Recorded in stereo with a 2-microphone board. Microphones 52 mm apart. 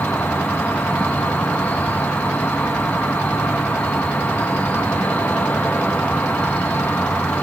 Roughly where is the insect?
Left.